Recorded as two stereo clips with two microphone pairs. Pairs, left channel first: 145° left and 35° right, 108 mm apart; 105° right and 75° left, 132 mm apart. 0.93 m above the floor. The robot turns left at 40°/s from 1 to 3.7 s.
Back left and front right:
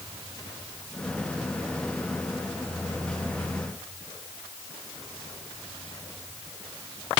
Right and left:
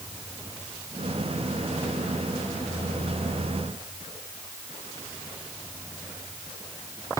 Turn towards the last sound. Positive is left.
No sound to turn to.